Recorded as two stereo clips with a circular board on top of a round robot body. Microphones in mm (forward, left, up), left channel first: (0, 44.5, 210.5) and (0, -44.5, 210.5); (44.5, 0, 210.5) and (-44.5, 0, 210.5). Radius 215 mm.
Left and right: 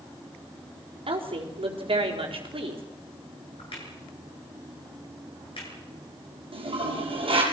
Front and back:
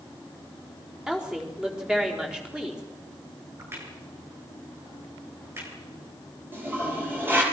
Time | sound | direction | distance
1.1 | a woman speaking | 100° right | 4.5 m
3.6 | a crack | 115° left | 7 m
6.5 | a toilet flushing | 115° right | 5 m